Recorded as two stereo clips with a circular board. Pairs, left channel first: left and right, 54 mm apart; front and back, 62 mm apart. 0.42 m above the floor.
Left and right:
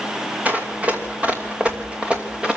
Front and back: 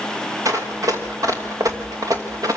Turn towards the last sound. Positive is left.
turn(degrees=-165)